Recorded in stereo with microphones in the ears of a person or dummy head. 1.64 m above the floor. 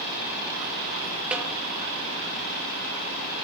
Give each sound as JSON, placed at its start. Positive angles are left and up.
{"t": 1.3, "sound": "a snare drum", "side_deg": -5, "distance_m": 2.0}